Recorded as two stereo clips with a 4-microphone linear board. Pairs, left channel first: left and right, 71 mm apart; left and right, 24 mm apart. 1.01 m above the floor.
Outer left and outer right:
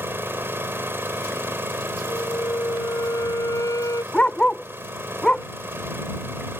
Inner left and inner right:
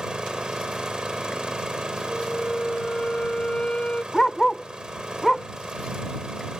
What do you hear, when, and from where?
0.0 s an engine running: 30° right (ahead or behind)
2.1 s a flute: 50° left (ahead or behind)
4.1 s a dog barking: 15° left (ahead or behind)